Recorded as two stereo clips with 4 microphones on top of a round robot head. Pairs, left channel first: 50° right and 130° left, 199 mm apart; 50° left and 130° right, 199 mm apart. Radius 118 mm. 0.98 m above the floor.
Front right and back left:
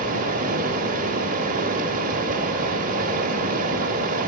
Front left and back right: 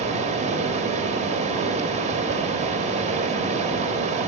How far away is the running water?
About 1.2 m.